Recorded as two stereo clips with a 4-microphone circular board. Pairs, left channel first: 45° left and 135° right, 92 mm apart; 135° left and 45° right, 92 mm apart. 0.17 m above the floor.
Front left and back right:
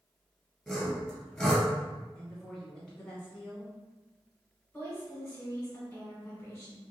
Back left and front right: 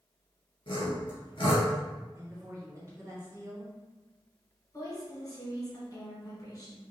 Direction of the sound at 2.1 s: 30° right.